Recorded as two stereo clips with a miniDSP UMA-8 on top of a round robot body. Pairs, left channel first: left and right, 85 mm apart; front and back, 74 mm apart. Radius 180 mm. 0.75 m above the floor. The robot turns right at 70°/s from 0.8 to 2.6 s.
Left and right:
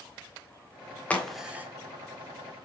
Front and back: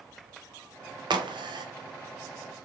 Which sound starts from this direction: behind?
A crack, at 1.1 s.